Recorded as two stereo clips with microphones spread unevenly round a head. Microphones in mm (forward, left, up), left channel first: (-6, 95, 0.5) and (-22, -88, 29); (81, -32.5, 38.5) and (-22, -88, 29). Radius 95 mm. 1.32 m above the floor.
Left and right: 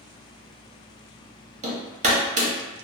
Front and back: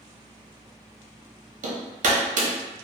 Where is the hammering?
150° right, 0.8 m.